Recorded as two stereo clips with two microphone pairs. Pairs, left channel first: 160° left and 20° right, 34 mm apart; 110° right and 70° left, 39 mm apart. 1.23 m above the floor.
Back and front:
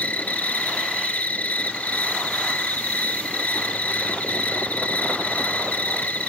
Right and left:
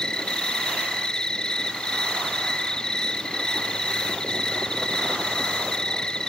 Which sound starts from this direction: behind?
An insect, at 0.0 s.